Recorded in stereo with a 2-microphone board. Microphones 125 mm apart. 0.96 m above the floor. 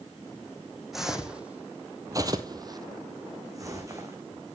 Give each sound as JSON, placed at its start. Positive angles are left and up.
{"t": 0.9, "sound": "footsteps", "side_deg": -5, "distance_m": 2.0}